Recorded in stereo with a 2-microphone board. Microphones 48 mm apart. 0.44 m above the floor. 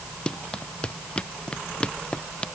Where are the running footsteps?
25° left (ahead or behind).